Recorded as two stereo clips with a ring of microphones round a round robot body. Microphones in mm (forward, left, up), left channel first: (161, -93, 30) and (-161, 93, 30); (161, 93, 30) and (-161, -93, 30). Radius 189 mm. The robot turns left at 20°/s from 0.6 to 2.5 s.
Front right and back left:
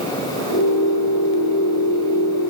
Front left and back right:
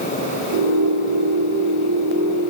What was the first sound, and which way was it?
Only background noise.